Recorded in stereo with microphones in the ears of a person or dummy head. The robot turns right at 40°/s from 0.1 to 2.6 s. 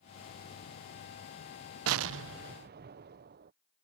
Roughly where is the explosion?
Right.